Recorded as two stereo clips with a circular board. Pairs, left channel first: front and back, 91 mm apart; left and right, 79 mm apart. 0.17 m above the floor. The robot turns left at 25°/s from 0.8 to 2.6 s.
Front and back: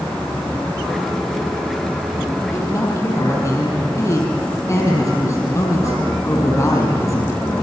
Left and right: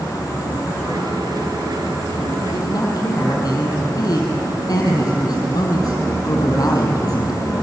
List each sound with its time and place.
2.5 s a man speaking: 60° left, 5 m; by 7.6 s 55° left, 5 m